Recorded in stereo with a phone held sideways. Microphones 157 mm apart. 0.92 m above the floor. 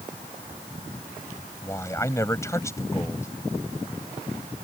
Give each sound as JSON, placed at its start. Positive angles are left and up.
{"t": 1.6, "sound": "a man speaking", "side_deg": 20}